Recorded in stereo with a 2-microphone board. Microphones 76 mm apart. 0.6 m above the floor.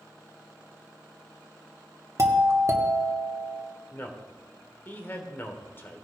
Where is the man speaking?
30° left (ahead or behind), 1.7 m.